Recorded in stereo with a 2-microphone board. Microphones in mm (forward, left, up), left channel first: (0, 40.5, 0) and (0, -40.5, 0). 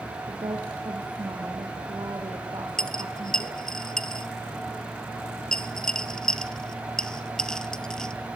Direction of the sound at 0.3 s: 60° right (ahead or behind).